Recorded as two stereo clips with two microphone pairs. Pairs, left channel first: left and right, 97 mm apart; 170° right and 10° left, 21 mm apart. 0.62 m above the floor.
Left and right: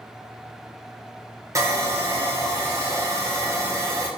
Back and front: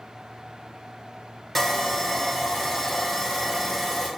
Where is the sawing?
110° right, 0.7 m.